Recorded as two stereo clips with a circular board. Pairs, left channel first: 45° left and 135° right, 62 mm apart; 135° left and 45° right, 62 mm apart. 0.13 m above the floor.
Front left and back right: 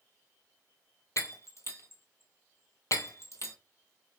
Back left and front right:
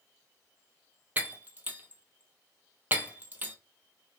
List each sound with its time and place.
1.2 s breaking glass: 15° left, 0.9 m